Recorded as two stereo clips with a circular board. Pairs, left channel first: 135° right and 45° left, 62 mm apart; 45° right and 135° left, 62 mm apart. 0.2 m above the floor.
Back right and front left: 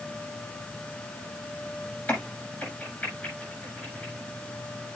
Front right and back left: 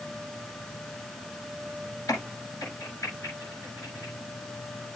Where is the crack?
70° right, 8 m.